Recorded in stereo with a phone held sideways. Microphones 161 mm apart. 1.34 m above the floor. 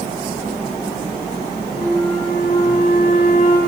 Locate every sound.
1.7 s a flute: 45° left (ahead or behind), 1.7 m